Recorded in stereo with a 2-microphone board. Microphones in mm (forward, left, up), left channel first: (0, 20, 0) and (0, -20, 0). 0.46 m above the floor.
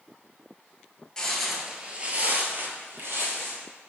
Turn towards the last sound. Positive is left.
turn(degrees=-65)  # may be behind; listen again after turning